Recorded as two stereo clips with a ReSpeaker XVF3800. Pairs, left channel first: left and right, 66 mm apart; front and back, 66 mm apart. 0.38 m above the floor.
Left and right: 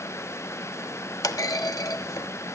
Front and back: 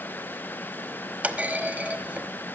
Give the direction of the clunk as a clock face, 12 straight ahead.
8 o'clock.